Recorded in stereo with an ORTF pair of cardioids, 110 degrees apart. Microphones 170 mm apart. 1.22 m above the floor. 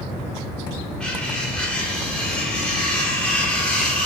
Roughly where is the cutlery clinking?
Ahead.